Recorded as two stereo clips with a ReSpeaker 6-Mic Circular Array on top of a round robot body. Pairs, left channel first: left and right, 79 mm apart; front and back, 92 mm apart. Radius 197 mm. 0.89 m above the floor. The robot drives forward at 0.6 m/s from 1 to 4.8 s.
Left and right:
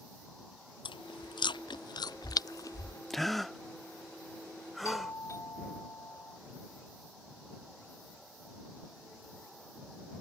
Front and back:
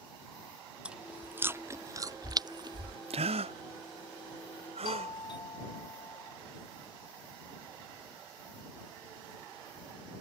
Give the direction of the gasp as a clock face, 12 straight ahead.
6 o'clock.